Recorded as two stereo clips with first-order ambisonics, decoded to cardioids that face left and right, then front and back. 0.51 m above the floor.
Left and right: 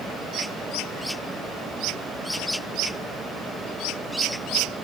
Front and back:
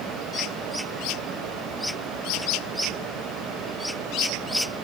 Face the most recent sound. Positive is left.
No sound to turn to.